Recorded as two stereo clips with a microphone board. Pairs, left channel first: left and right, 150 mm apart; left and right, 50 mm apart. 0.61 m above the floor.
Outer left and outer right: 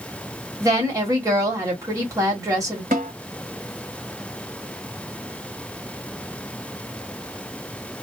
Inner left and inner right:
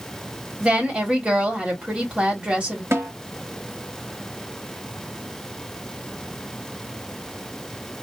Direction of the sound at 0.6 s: 20° right (ahead or behind).